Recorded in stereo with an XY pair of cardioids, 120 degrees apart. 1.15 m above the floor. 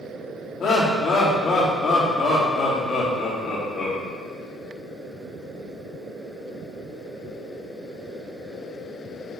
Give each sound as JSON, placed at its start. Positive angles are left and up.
{"t": 0.6, "sound": "laughter", "azimuth_deg": 40, "distance_m": 2.5}